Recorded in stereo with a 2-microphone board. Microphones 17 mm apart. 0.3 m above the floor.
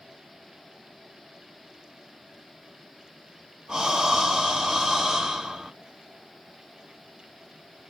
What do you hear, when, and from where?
3.7 s breathing: 60° right (ahead or behind), 2 m